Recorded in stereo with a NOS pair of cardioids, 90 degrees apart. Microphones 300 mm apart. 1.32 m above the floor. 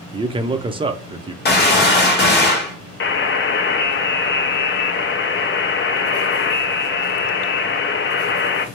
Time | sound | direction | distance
0.1 | a man speaking | 15° right | 0.5 m
1.4 | a gunshot | 30° left | 1.1 m
3.0 | a buzzer | 35° left | 0.6 m